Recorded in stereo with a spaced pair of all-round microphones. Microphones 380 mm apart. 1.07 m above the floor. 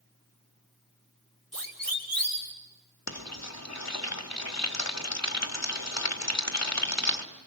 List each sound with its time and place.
1.5 s a siren: 60° right (ahead or behind), 5.5 m
3.1 s frying: 45° left (ahead or behind), 2.0 m